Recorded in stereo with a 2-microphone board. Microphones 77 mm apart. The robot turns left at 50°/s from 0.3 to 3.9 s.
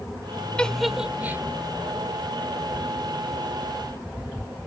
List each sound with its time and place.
0.6 s a giggle: 15° left (ahead or behind); by 1.4 s 30° right (ahead or behind)